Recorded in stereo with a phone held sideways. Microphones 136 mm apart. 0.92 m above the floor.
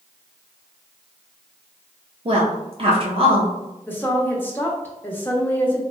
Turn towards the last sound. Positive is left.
turn(degrees=15)  # may be behind; listen again after turning